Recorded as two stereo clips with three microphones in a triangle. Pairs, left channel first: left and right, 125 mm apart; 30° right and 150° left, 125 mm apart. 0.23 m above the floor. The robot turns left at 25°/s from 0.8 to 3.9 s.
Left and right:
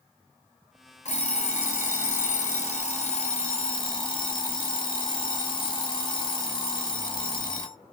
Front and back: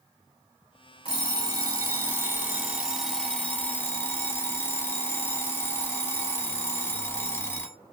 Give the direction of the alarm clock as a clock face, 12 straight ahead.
8 o'clock.